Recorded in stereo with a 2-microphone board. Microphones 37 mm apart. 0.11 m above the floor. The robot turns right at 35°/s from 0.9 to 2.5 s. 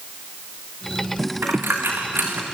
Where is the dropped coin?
80° right, 3.5 m; by 2.4 s 60° right (ahead or behind), 3.5 m.